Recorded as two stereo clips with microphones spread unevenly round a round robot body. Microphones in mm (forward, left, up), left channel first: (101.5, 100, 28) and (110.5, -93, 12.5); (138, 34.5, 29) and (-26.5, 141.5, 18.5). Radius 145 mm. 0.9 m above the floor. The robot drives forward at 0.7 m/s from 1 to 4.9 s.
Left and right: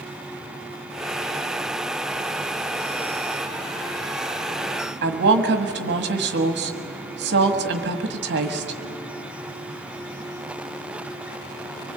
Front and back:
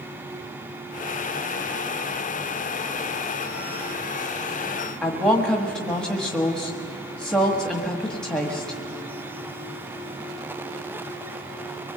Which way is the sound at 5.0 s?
120° right.